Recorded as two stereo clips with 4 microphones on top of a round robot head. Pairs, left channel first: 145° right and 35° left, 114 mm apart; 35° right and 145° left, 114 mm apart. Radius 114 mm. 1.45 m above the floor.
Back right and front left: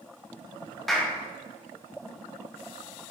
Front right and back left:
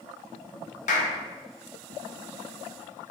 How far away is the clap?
About 0.8 m.